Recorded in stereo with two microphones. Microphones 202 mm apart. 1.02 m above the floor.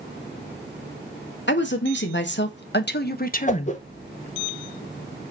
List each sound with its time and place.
1.5 s a woman speaking: 65° left (ahead or behind), 2 m; by 3.8 s 25° left (ahead or behind), 0.9 m
3.5 s a whoosh: 35° left (ahead or behind), 1.1 m